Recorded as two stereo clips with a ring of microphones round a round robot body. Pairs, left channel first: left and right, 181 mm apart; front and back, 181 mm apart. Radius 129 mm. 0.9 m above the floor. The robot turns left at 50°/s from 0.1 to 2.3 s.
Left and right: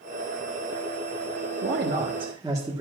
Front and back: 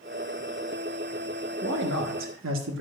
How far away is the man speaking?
About 1.3 m.